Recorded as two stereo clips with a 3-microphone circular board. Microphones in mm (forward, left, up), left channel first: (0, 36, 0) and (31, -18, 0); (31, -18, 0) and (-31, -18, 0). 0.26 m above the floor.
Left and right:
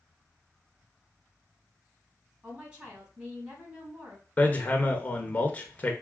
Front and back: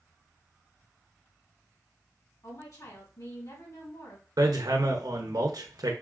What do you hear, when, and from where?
2.4 s a woman speaking: 5° left, 3 m
4.4 s hammering: 175° right, 0.9 m